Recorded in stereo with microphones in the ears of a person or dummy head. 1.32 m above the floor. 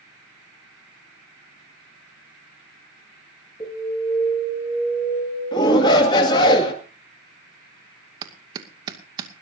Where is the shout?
30° left (ahead or behind), 2.5 m.